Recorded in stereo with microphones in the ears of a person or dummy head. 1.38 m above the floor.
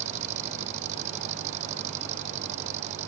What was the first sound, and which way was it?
An engine running, 40° right (ahead or behind).